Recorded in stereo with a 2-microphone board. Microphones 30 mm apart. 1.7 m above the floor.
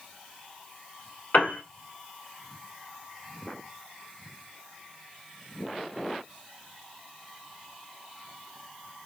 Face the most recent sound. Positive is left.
turn(degrees=65)  # may be behind; listen again after turning